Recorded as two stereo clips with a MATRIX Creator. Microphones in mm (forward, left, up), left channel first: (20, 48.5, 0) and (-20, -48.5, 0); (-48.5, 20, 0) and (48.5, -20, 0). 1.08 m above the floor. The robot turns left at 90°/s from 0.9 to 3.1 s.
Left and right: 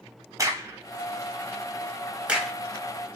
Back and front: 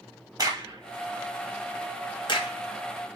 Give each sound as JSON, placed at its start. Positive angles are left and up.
{"t": 0.4, "sound": "a crack", "azimuth_deg": -65, "distance_m": 1.2}